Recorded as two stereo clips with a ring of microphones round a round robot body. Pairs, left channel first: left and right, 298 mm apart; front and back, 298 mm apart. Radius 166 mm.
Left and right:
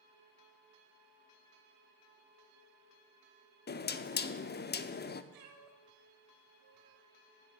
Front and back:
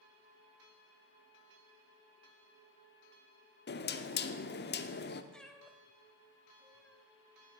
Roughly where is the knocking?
Ahead left.